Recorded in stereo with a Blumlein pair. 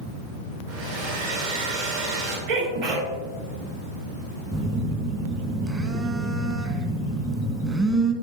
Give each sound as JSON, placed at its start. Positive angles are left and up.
{"t": 0.7, "sound": "a hair dryer", "azimuth_deg": -55, "distance_m": 3.0}
{"t": 2.5, "sound": "a sneeze", "azimuth_deg": -50, "distance_m": 3.5}
{"t": 4.5, "sound": "a phone buzzing", "azimuth_deg": -15, "distance_m": 1.2}